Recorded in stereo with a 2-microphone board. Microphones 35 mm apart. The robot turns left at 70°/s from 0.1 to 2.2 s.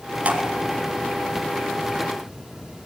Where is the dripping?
45° right (ahead or behind), 2 m; by 0.4 s 30° right (ahead or behind), 2 m.